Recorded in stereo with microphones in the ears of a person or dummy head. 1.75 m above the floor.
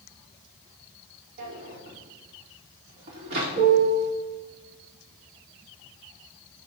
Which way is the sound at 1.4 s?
60° right (ahead or behind).